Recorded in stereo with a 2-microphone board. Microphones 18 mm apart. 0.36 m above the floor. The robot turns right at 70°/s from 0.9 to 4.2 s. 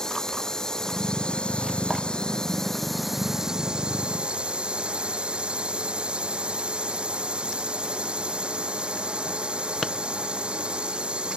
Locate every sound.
0.0 s a drone: 30° left; by 11.4 s 100° right